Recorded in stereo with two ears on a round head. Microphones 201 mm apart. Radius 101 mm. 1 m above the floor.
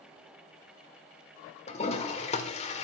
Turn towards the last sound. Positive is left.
turn(degrees=30)  # may be behind; listen again after turning